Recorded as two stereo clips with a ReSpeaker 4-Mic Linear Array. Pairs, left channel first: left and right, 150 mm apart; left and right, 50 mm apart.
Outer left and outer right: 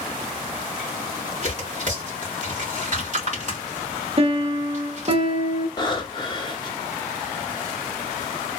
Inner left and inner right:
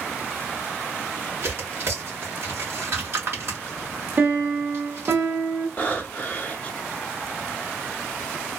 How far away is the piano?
About 0.7 m.